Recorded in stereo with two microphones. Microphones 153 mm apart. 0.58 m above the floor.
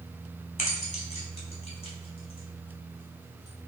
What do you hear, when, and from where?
0.6 s keys jangling: 55° left (ahead or behind), 3 m; by 3.7 s 25° left (ahead or behind), 3 m